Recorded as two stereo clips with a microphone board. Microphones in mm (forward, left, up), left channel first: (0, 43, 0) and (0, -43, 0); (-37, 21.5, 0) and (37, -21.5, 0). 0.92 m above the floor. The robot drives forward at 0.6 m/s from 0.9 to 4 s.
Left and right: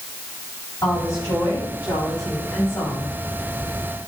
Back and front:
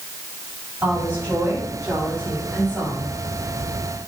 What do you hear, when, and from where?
0.8 s a woman speaking: 30° left, 6.5 m; by 3.1 s 40° left, 5.5 m